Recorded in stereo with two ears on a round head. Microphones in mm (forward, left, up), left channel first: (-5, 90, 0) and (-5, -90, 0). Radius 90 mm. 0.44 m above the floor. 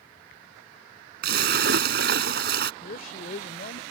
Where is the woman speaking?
45° left (ahead or behind).